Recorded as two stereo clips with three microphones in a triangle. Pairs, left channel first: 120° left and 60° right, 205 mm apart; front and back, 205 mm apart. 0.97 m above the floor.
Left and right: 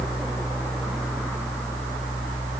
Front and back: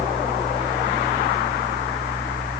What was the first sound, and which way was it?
Only background noise.